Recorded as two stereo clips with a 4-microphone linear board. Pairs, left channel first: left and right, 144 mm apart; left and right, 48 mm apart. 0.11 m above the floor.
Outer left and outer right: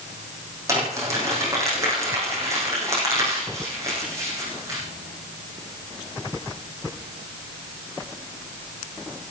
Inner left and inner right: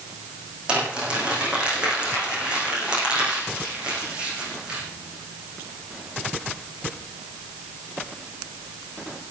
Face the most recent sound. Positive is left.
turn(degrees=-20)  # may be behind; listen again after turning